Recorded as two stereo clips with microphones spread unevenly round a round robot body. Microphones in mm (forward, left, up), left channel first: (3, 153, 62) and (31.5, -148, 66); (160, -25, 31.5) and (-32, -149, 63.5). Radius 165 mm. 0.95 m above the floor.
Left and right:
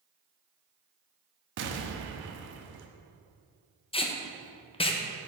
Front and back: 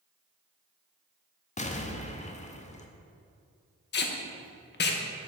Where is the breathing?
No breathing in this recording.